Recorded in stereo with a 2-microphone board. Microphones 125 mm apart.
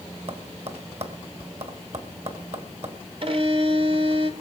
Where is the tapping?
55° right (ahead or behind), 2 m.